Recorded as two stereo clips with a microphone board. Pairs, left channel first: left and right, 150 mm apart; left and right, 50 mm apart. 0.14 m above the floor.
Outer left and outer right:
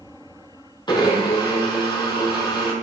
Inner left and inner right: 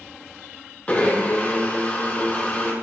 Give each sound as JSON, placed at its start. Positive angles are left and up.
{"t": 0.9, "sound": "a blender", "side_deg": 30, "distance_m": 3.5}